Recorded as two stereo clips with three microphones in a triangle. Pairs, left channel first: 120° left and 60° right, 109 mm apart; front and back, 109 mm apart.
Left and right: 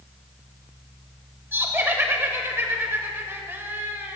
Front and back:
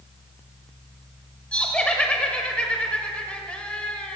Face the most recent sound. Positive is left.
turn(degrees=-55)